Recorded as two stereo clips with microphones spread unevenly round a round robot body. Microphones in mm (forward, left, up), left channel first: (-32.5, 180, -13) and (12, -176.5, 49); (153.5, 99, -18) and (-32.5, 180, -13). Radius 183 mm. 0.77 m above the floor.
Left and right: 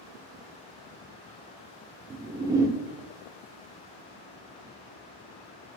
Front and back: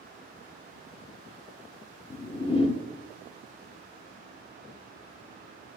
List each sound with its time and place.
2.1 s a whoosh: 10° left, 0.6 m